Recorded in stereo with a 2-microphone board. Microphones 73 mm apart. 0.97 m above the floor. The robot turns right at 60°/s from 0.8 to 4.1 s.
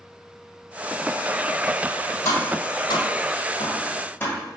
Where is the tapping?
40° left (ahead or behind), 1.4 m; by 4.4 s 25° left (ahead or behind), 1.4 m.